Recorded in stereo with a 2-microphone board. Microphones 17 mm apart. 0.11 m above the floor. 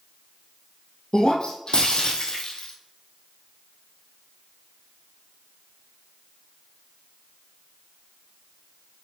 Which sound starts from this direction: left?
Breaking glass, at 1.1 s.